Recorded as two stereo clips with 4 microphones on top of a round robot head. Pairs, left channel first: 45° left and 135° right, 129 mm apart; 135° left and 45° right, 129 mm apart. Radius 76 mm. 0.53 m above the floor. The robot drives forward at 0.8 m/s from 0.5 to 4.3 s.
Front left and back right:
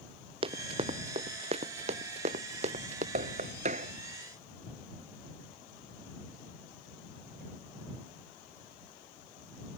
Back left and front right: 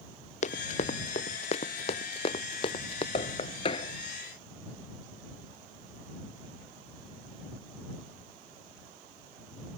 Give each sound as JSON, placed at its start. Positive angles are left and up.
{"t": 0.4, "sound": "running footsteps", "azimuth_deg": 175}
{"t": 3.1, "sound": "knocking", "azimuth_deg": -175}